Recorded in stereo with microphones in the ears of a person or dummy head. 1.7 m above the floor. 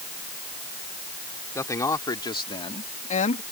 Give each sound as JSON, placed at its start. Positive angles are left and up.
{"t": 1.6, "sound": "a man speaking", "side_deg": 15}